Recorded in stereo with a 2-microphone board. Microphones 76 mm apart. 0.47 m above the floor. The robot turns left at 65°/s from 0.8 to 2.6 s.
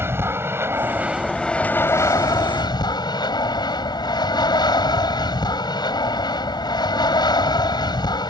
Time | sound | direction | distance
0.0 | an aircraft | 145° right | ?